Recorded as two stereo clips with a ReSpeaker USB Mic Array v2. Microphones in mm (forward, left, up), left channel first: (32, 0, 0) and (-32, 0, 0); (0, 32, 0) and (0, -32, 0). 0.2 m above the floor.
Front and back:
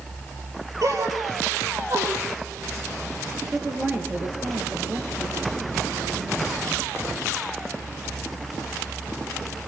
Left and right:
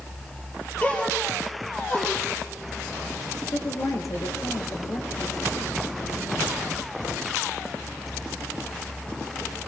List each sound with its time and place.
0.8 s a gasp: 155° left, 5.5 m
3.5 s a woman speaking: 120° left, 4 m